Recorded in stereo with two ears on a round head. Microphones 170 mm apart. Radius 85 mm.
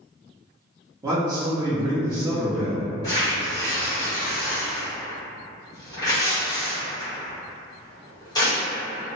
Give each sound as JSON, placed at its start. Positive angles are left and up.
{"t": 1.0, "sound": "a man speaking", "side_deg": -15, "distance_m": 0.7}
{"t": 3.0, "sound": "tearing paper", "side_deg": 20, "distance_m": 1.2}